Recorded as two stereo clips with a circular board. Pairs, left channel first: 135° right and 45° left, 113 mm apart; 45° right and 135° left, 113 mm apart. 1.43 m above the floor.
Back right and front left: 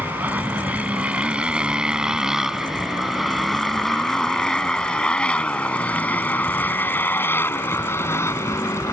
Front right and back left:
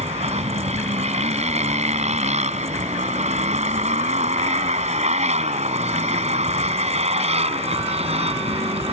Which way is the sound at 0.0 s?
120° left.